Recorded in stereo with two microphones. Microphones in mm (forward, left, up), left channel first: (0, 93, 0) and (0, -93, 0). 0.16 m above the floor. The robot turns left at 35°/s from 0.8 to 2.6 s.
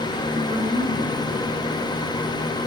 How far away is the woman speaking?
About 1.8 m.